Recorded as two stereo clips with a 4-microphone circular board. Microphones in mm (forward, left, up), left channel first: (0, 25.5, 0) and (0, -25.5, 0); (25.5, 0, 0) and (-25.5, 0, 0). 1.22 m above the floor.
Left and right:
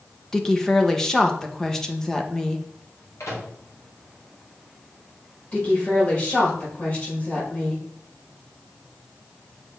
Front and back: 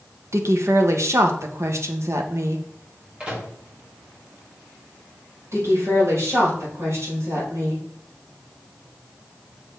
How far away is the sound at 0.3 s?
About 1.0 m.